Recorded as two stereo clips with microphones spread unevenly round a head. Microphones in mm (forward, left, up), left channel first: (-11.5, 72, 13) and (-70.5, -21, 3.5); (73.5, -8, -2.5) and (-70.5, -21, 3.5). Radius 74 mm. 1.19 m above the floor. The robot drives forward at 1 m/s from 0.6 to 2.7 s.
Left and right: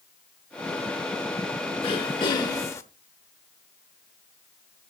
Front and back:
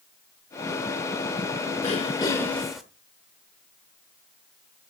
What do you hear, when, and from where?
1.8 s throat clearing: 40° left, 1.3 m; by 2.8 s 100° left, 1.0 m